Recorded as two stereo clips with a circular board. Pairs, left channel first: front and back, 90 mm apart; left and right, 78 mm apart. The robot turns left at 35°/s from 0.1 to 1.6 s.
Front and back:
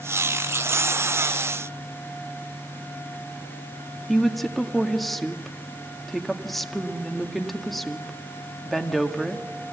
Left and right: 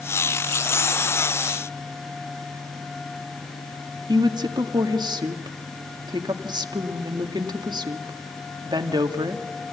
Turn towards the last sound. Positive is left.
turn(degrees=-90)